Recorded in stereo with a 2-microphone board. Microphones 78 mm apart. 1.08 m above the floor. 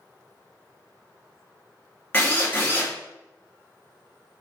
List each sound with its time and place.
2.1 s a drill: 35° left (ahead or behind), 1.6 m